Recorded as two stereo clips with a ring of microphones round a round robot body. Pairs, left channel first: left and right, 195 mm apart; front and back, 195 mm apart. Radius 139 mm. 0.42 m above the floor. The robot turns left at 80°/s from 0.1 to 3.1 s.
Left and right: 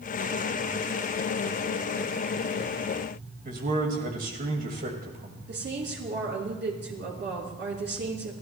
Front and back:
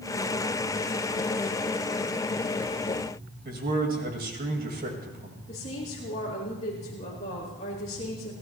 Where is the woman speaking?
65° right, 5 m.